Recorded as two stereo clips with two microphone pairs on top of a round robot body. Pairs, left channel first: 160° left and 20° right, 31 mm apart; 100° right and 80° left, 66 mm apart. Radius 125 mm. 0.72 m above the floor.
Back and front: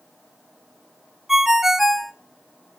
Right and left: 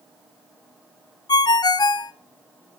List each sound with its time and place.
1.3 s a ringtone: 95° right, 0.8 m